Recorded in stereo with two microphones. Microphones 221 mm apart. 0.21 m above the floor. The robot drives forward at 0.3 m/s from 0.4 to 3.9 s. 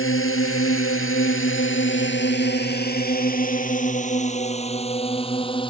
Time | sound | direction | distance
0.0 | a drone | 70° left (ahead or behind) | ?